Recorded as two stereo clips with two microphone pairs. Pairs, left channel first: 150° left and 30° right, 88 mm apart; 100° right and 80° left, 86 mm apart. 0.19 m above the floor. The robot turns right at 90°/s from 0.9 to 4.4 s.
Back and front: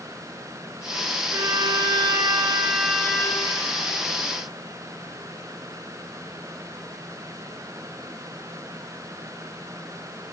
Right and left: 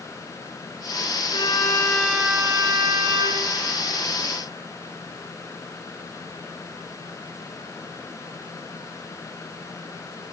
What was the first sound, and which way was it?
A violin, 80° right.